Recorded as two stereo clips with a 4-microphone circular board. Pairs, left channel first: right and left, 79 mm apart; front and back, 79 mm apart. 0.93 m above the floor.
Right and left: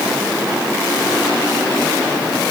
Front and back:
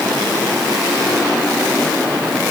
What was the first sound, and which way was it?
Only background noise.